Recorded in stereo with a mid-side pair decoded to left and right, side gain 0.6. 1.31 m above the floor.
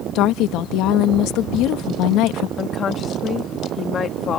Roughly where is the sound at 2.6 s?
Ahead left.